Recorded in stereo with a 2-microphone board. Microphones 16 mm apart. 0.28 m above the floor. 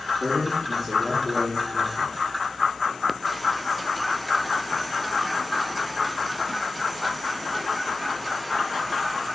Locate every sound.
0.2 s a man speaking: 5° right (ahead or behind), 4 m; by 2.1 s 20° right (ahead or behind), 3.5 m